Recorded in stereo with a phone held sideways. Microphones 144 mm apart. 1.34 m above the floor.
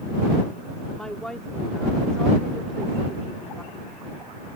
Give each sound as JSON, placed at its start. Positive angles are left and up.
{"t": 0.9, "sound": "a woman speaking", "side_deg": 5}